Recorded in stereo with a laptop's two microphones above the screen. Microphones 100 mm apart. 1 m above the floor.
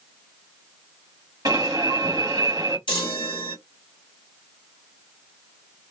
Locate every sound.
1.4 s an alarm: 40° right (ahead or behind), 1.2 m
2.9 s a chime: 55° left (ahead or behind), 1.1 m